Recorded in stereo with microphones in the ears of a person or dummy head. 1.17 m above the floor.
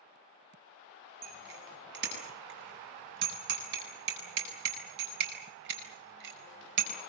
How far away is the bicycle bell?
About 7 m.